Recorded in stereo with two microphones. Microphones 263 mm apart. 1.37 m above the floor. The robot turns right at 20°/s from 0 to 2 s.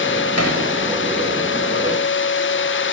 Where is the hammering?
65° left (ahead or behind), 4.5 m; by 0.6 s 70° left (ahead or behind), 4.5 m.